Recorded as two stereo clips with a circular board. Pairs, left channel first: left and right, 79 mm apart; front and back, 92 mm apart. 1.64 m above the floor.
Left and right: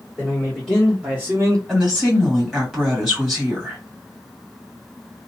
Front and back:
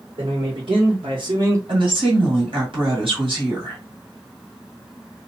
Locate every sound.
0.2 s a man speaking: 165° left, 1.5 m; by 1.6 s 125° right, 0.7 m
1.7 s a woman speaking: 175° left, 1.7 m